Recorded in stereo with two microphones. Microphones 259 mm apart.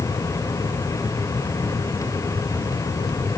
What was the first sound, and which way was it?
Only background noise.